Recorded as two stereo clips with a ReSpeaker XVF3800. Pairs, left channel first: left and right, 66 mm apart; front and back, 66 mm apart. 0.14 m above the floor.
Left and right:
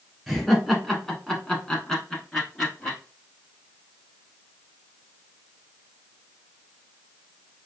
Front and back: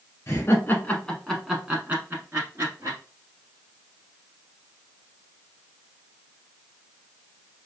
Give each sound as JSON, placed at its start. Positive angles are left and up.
{"t": 0.3, "sound": "laughter", "azimuth_deg": 0, "distance_m": 1.3}